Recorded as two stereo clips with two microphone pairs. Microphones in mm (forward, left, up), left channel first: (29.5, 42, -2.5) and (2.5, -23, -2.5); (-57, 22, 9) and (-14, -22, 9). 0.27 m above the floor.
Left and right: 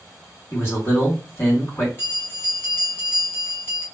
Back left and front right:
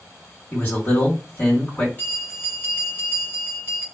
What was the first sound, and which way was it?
A man speaking, 95° left.